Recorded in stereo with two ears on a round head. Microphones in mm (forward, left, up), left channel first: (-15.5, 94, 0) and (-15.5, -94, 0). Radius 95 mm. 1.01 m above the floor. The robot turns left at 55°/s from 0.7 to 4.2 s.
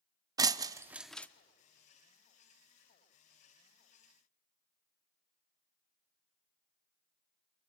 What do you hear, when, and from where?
0.4 s breaking glass: 15° right (ahead or behind), 0.7 m; by 1.3 s 10° left (ahead or behind), 0.7 m